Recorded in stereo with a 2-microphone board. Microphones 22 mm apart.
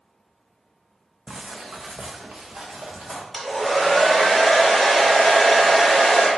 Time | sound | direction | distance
1.3 | footsteps | 45° right (ahead or behind) | 0.6 m
3.3 | a hair dryer | 10° right (ahead or behind) | 1.4 m